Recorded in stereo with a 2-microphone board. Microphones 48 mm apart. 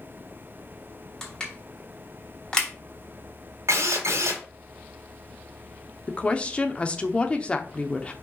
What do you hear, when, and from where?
1.2 s crushing: 15° left (ahead or behind), 2.5 m
3.7 s a drill: 75° right (ahead or behind), 1.6 m
6.1 s a woman speaking: 25° left (ahead or behind), 0.8 m